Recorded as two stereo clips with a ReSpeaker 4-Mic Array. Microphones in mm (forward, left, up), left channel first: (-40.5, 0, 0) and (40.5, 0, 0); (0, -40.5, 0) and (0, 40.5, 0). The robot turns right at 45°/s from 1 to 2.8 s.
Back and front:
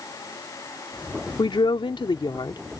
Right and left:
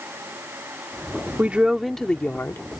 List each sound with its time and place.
1.4 s a woman speaking: 160° left; by 2.8 s 135° right